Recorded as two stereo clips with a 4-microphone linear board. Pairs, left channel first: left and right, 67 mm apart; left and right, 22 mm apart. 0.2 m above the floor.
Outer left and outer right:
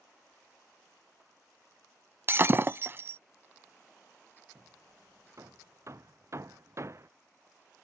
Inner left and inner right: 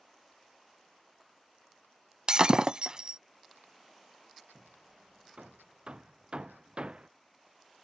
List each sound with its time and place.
2.3 s breaking glass: 40° right (ahead or behind)
4.5 s hammering: 45° right (ahead or behind)